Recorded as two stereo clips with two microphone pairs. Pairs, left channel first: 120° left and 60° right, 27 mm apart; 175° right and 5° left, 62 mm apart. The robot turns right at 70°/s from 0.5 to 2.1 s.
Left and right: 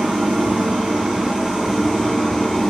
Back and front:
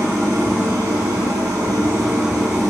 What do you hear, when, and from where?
0.0 s an engine running: 55° right, 2.5 m; by 2.7 s 60° left, 2.5 m